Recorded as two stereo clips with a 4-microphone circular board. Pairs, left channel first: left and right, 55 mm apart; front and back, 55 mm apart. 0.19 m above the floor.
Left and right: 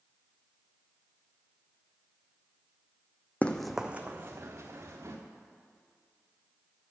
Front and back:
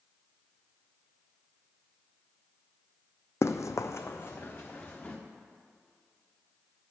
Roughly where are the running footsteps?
Ahead left.